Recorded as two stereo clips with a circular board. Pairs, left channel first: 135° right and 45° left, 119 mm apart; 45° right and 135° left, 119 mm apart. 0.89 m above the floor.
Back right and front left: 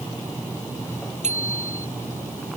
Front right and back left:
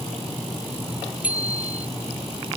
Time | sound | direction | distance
1.2 | a bicycle bell | 55° left | ?